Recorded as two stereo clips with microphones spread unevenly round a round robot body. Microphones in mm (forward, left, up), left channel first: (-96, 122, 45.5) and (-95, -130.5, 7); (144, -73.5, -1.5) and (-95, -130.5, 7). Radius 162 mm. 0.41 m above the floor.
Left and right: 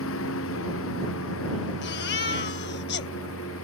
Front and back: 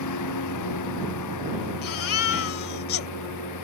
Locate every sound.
0.0 s a lawn mower: 40° left
1.8 s a baby crying: 35° left